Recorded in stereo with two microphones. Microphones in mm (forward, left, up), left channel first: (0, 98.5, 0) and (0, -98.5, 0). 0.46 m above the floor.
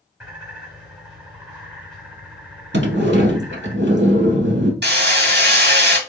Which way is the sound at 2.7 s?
65° right (ahead or behind).